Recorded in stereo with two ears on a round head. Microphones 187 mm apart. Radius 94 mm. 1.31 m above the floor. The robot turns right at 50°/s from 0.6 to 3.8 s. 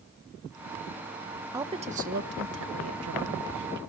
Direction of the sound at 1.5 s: 15° right (ahead or behind).